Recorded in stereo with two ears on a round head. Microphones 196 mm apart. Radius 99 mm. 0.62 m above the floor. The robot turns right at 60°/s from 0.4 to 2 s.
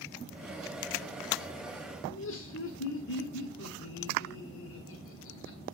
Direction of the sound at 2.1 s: 60° left (ahead or behind).